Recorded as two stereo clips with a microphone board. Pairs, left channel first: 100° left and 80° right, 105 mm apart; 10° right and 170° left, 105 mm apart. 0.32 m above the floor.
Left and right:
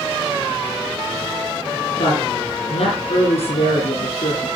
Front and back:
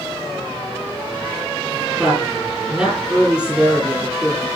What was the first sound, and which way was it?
A woman speaking, 90° left.